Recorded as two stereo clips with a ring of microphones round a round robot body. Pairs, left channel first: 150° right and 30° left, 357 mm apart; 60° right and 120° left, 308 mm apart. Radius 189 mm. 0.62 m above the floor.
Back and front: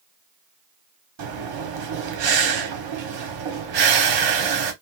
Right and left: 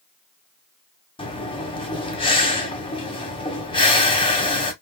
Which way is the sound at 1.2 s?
15° left.